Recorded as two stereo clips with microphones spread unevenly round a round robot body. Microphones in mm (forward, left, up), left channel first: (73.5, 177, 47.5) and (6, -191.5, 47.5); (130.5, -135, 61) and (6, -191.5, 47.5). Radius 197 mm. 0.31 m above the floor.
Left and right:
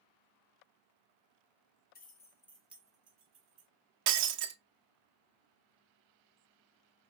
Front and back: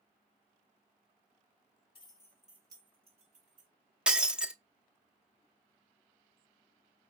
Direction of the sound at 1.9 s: 35° left.